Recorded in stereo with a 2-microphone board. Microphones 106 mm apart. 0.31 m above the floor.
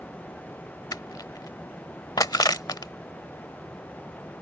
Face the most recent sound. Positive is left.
turn(degrees=40)  # may be behind; listen again after turning